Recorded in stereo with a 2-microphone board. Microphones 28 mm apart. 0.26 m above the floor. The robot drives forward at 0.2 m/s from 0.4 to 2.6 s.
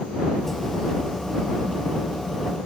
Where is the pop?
I don't hear a pop.